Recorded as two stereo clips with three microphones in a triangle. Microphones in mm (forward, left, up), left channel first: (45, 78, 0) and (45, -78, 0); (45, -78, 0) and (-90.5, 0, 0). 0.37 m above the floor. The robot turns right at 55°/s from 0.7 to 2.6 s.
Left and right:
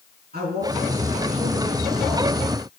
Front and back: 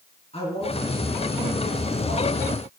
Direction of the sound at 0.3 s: 80° right.